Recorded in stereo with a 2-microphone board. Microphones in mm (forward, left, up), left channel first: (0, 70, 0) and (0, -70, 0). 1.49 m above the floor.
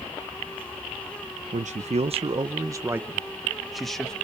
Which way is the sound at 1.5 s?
60° right (ahead or behind).